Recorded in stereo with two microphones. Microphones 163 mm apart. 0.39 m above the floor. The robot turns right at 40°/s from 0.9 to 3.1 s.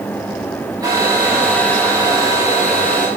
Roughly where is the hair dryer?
Ahead right.